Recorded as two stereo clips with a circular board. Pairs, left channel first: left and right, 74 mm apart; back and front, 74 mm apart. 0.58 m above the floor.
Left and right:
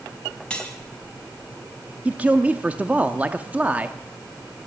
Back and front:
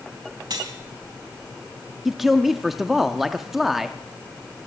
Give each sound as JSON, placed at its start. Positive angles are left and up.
{"t": 0.5, "sound": "cutlery clinking", "azimuth_deg": 15, "distance_m": 2.5}
{"t": 2.0, "sound": "a man speaking", "azimuth_deg": -80, "distance_m": 0.7}